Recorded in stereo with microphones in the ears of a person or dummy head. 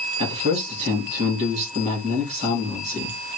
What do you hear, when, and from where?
0.2 s a man speaking: 35° right (ahead or behind), 2 m